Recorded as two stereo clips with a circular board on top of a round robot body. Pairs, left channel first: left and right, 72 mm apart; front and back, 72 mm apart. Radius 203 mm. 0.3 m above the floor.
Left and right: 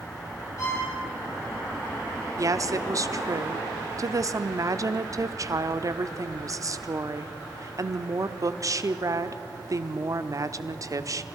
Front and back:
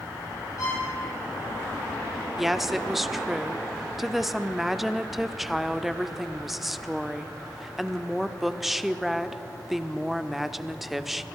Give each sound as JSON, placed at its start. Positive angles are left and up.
{"t": 0.6, "sound": "a violin", "azimuth_deg": 40, "distance_m": 5.5}
{"t": 2.4, "sound": "a woman speaking", "azimuth_deg": -95, "distance_m": 1.3}